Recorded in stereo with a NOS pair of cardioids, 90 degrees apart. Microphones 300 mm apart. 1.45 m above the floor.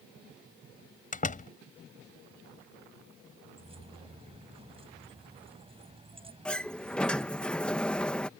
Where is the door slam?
25° left.